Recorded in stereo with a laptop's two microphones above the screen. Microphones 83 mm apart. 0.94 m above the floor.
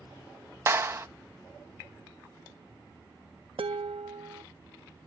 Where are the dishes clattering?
80° right.